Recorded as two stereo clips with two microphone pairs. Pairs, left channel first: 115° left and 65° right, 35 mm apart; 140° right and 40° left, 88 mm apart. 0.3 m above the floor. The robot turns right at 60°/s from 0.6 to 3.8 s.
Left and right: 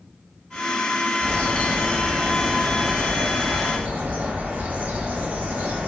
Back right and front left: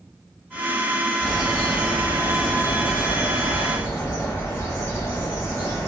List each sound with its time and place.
1.2 s a bird: 125° left, 0.9 m; by 5.9 s 80° right, 0.9 m